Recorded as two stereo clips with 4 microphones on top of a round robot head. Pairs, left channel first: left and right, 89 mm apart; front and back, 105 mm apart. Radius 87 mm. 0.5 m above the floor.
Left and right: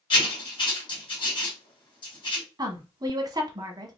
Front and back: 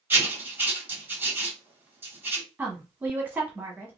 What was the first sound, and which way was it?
Writing, 110° left.